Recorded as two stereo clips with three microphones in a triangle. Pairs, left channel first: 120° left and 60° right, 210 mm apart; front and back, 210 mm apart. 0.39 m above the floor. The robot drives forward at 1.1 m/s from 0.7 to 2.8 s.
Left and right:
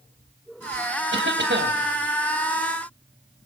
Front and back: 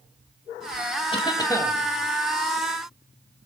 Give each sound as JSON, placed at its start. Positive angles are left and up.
{"t": 1.1, "sound": "a cough", "azimuth_deg": -60, "distance_m": 2.5}